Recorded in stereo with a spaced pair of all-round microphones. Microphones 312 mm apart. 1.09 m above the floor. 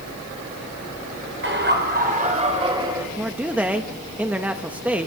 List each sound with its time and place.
1.4 s laughter: 40° right (ahead or behind), 5 m; by 3.1 s 10° right (ahead or behind), 5.5 m
3.2 s a man speaking: 5° right (ahead or behind), 1.1 m